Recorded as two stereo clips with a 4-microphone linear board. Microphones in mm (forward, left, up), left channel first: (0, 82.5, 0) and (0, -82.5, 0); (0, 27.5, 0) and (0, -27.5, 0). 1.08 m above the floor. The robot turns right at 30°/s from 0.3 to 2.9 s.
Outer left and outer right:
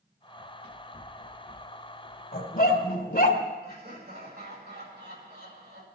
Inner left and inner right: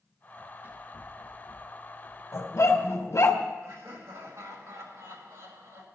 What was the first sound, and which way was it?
Running footsteps, 30° right (ahead or behind).